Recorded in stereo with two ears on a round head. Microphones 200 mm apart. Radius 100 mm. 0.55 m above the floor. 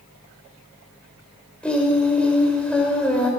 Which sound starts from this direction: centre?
Singing, at 1.6 s.